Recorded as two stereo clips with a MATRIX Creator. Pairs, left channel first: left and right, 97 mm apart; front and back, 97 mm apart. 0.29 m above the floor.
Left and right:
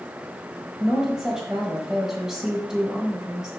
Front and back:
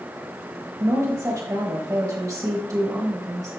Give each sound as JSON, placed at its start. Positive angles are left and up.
{"t": 0.8, "sound": "a woman speaking", "azimuth_deg": -170, "distance_m": 1.2}